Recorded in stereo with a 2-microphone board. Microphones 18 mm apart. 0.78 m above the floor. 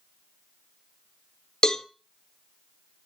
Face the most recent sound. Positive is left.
turn(degrees=45)  # may be behind; listen again after turning